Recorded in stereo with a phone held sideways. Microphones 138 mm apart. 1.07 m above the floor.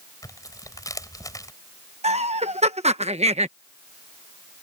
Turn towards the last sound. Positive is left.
turn(degrees=-50)  # may be behind; listen again after turning